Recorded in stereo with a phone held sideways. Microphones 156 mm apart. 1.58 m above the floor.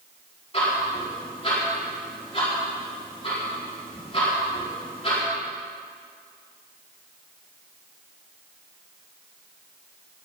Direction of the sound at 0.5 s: 35° left (ahead or behind).